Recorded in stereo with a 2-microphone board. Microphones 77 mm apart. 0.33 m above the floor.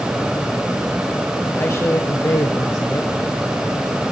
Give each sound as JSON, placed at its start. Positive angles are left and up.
{"t": 1.5, "sound": "a man speaking", "side_deg": 35, "distance_m": 1.6}